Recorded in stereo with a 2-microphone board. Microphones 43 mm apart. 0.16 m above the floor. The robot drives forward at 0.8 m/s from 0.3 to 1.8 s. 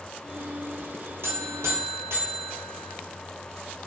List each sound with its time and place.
1.2 s a buzzer: 70° right (ahead or behind), 1.0 m; by 2.9 s 75° right (ahead or behind), 0.9 m